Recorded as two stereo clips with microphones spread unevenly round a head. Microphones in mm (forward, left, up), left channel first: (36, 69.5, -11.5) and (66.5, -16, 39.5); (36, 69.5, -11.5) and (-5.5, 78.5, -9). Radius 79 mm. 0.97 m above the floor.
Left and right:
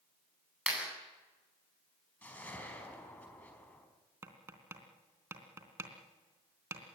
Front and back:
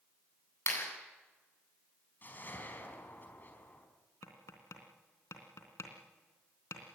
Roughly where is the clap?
Ahead.